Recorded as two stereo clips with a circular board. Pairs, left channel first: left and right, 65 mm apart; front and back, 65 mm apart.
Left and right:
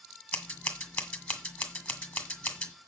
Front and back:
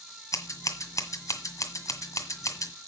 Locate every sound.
0.3 s scissors: 30° left, 1.7 m